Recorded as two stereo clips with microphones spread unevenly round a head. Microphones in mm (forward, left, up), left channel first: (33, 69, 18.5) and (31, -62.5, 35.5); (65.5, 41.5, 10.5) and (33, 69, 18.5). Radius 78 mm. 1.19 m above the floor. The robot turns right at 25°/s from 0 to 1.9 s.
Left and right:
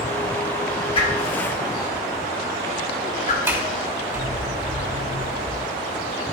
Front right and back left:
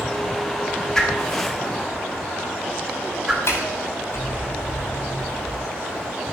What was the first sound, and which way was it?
A whoosh, 35° left.